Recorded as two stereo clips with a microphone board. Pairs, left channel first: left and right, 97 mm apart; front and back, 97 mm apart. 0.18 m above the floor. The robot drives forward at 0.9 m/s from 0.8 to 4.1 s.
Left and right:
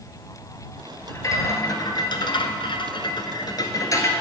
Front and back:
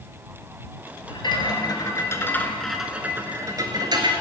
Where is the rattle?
30° left, 1.8 m; by 4.1 s 145° left, 1.6 m.